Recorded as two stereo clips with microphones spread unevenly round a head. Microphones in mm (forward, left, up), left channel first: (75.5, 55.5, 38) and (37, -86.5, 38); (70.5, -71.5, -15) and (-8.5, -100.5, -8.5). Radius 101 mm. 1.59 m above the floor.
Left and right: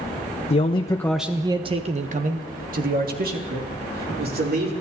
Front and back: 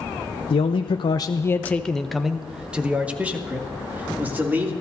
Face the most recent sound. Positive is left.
turn(degrees=-95)